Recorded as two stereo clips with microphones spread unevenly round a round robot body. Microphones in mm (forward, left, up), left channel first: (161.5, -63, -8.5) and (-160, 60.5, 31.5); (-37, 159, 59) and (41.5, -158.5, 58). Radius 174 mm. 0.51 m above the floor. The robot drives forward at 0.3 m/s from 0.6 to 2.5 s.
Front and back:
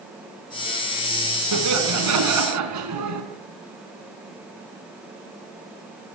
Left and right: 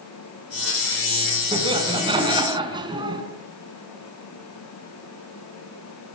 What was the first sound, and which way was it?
Laughter, 150° right.